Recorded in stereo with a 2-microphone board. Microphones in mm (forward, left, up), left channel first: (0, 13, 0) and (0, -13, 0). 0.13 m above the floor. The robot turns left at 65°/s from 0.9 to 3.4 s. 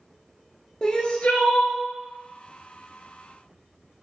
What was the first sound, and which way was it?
Crying, 140° left.